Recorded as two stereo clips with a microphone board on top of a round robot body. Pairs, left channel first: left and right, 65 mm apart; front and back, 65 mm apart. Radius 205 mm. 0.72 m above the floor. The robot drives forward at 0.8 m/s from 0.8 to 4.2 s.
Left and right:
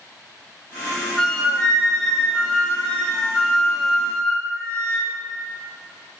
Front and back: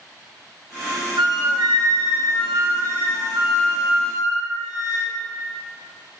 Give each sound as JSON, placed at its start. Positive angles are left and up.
{"t": 1.2, "sound": "a flute", "azimuth_deg": 175, "distance_m": 1.0}